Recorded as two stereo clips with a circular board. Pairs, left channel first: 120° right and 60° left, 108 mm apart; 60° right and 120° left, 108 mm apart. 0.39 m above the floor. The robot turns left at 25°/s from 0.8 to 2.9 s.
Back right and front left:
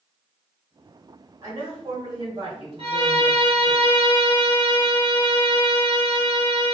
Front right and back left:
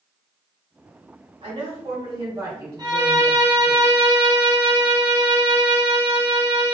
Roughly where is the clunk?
No clunk in this recording.